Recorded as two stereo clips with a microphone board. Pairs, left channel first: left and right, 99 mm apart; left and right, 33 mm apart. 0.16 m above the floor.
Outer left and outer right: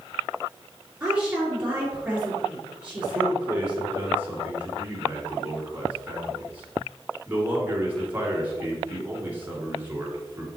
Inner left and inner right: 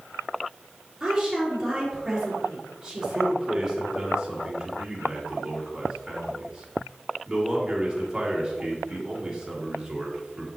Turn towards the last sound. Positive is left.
turn(degrees=-20)  # may be behind; listen again after turning